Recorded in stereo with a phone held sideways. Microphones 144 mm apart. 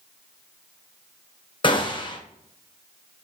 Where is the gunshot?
35° left (ahead or behind), 0.6 m.